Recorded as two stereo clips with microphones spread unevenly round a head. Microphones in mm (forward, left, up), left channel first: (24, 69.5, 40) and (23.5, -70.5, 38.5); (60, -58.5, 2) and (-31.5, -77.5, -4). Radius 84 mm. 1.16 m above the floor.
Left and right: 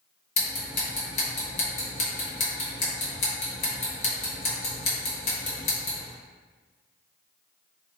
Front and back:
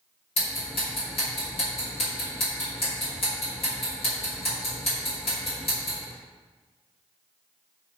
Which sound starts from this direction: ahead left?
Ticking, at 0.4 s.